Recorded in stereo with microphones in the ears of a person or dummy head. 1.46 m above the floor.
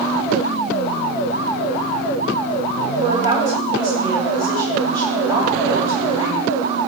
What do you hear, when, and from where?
3.0 s a woman speaking: 20° right (ahead or behind), 7 m